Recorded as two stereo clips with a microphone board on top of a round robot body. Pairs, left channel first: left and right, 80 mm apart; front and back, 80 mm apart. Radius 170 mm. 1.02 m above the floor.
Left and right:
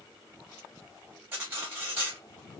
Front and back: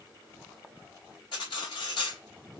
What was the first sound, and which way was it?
Cutlery clinking, 25° right.